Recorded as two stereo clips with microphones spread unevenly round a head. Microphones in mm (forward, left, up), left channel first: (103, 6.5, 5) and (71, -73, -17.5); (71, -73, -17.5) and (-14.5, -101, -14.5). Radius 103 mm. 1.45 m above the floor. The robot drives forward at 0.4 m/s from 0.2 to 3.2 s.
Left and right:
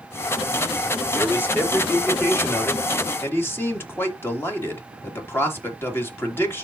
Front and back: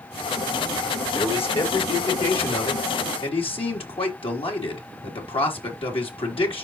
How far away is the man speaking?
About 4 m.